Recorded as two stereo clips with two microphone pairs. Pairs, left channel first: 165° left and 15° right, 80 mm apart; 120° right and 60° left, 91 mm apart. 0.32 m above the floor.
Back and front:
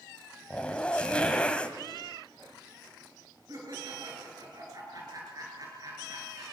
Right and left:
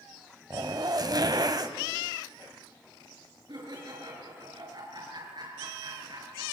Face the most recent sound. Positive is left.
turn(degrees=25)